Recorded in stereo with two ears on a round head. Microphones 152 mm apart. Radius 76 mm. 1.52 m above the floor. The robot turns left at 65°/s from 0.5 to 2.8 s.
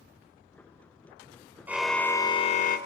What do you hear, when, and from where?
1.7 s a car horn: 170° right, 3 m; by 2.8 s 120° left, 3 m